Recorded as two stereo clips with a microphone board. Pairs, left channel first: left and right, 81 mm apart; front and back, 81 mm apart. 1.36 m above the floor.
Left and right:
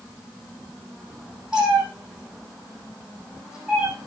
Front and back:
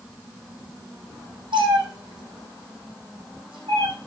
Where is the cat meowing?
170° right, 7.5 m.